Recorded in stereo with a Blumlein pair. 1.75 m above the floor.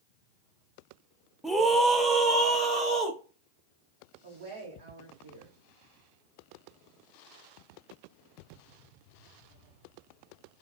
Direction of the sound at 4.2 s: 60° right.